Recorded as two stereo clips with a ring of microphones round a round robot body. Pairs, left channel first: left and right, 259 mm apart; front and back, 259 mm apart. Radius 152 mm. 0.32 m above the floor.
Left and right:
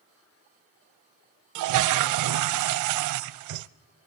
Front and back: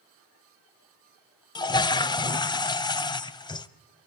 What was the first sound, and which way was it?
A toilet flushing, 75° right.